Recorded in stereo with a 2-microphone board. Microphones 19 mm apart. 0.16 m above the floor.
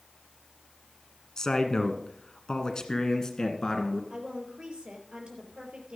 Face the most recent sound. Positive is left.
turn(degrees=-60)  # may be behind; listen again after turning